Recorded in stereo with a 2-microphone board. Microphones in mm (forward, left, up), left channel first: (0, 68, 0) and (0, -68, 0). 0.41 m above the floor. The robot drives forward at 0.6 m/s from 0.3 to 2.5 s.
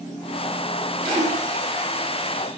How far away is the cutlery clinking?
No cutlery clinking in this recording.